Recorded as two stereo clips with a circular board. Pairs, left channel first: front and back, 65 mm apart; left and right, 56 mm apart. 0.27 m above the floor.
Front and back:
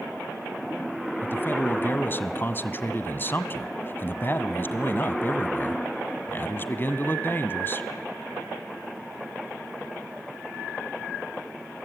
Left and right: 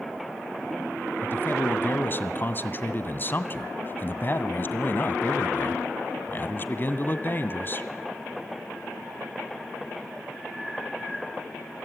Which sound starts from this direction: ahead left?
A man speaking, at 1.2 s.